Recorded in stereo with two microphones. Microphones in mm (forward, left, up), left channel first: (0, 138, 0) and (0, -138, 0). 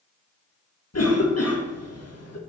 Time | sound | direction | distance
0.9 | a cough | 65° left (ahead or behind) | 1.5 m